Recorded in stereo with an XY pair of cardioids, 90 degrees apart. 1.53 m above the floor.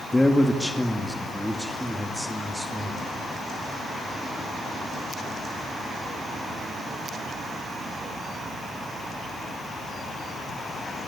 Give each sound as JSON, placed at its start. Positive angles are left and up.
{"t": 0.1, "sound": "a man speaking", "azimuth_deg": 15, "distance_m": 2.0}